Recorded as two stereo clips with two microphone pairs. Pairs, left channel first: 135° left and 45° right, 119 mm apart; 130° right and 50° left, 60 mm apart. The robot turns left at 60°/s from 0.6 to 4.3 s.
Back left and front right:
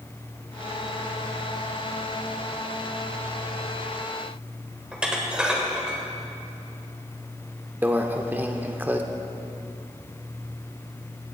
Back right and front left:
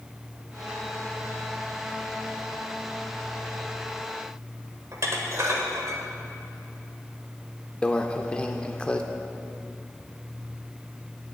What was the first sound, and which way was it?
Dishes clattering, 35° left.